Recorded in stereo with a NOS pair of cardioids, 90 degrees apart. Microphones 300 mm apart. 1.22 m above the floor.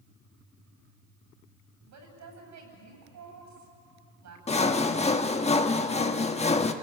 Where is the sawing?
20° left, 1.3 m.